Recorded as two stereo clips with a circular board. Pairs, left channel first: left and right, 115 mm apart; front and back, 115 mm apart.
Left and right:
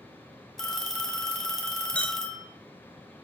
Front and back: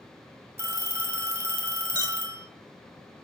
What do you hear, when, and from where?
0.6 s a phone ringing: 170° left, 0.8 m
1.9 s a clink: 160° left, 0.6 m